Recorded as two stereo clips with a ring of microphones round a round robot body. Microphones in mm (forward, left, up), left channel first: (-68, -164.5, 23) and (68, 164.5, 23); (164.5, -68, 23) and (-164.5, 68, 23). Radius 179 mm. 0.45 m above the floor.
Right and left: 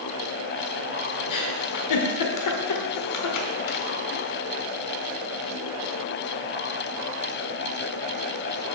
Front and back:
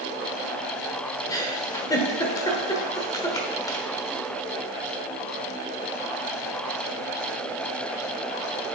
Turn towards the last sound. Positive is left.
turn(degrees=-100)